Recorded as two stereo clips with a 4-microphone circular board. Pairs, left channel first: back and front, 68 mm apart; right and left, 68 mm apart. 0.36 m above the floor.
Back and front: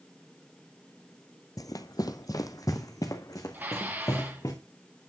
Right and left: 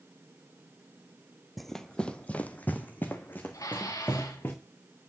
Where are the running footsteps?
Straight behind, 0.5 m; by 4.5 s 150° right, 2.5 m.